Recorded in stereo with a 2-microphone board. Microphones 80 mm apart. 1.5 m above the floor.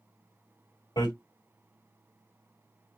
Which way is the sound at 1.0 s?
65° left (ahead or behind).